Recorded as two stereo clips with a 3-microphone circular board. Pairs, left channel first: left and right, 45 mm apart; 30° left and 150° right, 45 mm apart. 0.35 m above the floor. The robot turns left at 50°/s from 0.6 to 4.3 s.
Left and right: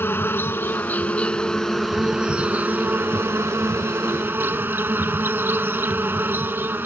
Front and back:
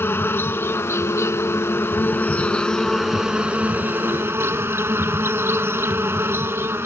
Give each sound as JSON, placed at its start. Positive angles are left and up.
{"t": 0.0, "sound": "an insect", "azimuth_deg": 60}